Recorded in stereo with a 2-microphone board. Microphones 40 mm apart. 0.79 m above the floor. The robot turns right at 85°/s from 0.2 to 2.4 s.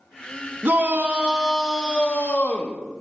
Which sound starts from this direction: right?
A shout, at 0.6 s.